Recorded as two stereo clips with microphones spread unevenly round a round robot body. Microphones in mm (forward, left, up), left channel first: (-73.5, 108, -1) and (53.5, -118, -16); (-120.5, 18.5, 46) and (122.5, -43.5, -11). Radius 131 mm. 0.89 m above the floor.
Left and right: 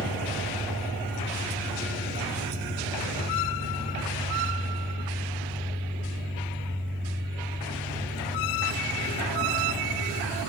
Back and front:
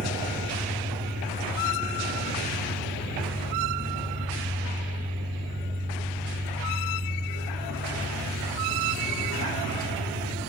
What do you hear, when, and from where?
0.0 s an engine running: 15° left, 6.5 m